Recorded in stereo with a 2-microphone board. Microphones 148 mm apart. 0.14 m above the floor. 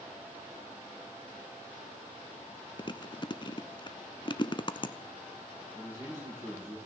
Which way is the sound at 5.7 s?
20° right (ahead or behind).